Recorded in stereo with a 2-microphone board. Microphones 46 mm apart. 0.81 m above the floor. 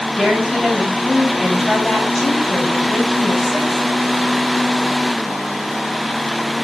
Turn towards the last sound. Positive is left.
turn(degrees=-5)  # may be behind; listen again after turning